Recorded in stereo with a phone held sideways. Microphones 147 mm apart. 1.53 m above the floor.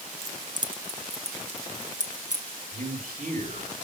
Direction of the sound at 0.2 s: 20° right (ahead or behind).